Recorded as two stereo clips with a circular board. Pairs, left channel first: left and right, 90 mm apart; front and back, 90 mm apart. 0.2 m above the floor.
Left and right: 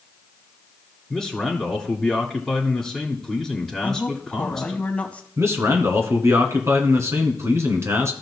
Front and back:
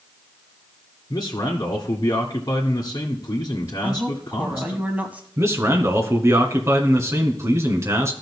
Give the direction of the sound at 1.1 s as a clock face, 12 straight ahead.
12 o'clock.